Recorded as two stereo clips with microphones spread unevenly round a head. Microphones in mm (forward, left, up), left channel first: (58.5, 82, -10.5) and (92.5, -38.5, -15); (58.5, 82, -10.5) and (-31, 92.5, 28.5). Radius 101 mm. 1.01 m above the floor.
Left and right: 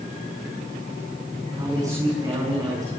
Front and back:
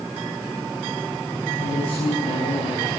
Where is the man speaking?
10° right, 9 m.